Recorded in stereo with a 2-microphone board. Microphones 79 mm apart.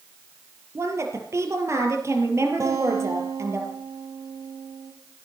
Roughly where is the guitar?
Right.